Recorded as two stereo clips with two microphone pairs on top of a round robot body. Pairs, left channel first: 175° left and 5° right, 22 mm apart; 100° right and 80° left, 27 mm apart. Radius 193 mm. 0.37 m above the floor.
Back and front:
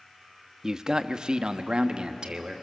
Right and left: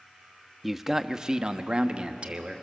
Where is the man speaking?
15° right, 0.9 m; by 2.6 s 30° left, 1.5 m.